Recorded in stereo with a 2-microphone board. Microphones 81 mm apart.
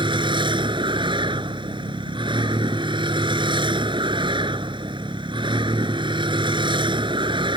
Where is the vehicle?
80° right.